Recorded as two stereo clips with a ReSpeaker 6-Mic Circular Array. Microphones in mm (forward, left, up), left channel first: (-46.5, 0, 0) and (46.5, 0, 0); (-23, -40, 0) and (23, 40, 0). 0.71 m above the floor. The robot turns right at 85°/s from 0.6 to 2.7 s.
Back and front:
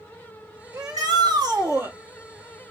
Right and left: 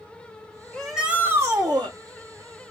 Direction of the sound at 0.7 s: 45° right.